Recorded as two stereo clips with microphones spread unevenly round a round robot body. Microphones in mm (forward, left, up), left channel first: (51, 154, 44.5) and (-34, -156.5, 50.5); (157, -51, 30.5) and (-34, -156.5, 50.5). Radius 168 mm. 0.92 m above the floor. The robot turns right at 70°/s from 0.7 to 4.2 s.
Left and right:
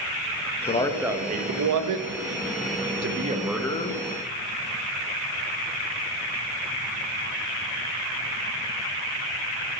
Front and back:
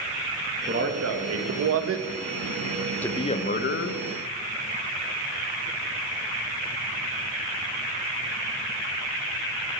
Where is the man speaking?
145° left, 0.7 m; by 4.0 s 15° left, 0.7 m.